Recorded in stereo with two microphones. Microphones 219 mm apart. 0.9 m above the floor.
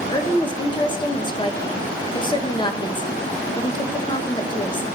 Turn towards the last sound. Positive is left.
turn(degrees=20)  # may be behind; listen again after turning